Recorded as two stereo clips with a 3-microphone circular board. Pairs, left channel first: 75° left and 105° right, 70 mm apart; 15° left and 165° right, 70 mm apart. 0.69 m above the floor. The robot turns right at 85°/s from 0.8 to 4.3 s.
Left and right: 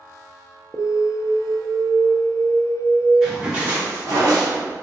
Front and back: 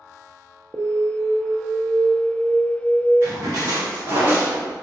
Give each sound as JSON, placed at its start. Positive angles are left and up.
{"t": 0.7, "sound": "an alarm", "azimuth_deg": 150, "distance_m": 0.5}
{"t": 3.2, "sound": "a splash", "azimuth_deg": 160, "distance_m": 1.9}